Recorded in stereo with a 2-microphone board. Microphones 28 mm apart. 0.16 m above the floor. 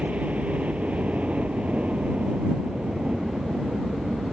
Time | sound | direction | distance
0.0 | a helicopter | 55° right (ahead or behind) | ?